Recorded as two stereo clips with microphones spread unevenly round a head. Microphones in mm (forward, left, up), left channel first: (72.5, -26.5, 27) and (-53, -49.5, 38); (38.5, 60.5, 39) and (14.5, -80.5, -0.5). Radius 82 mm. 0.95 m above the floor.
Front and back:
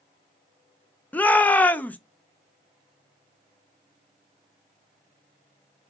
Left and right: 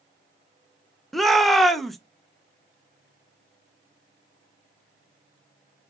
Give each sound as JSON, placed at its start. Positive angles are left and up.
{"t": 1.1, "sound": "a shout", "azimuth_deg": -40, "distance_m": 0.6}